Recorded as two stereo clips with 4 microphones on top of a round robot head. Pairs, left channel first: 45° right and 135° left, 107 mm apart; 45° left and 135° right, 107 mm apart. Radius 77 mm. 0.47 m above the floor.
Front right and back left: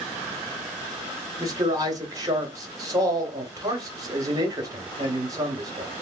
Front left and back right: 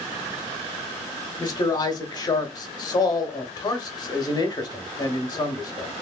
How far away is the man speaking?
About 1.4 m.